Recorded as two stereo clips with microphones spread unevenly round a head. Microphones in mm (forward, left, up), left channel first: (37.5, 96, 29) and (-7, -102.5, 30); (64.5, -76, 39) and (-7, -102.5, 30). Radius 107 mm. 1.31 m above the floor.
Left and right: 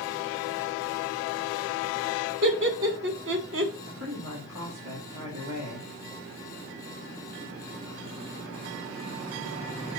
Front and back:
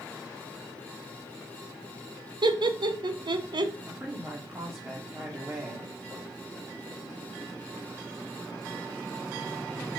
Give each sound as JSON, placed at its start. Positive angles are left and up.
{"t": 2.4, "sound": "laughter", "azimuth_deg": -140, "distance_m": 1.7}
{"t": 3.8, "sound": "a woman speaking", "azimuth_deg": -95, "distance_m": 3.0}